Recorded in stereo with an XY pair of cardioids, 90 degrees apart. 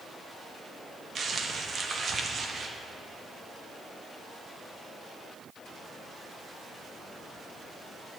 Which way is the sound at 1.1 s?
45° right.